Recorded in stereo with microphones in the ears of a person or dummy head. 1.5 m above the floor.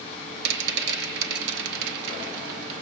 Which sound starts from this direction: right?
A rattle, at 0.5 s.